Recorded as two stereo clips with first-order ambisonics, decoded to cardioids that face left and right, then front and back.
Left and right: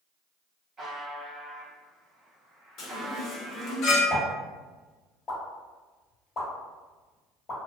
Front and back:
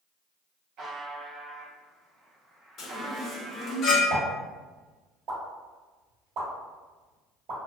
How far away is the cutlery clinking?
I don't hear cutlery clinking.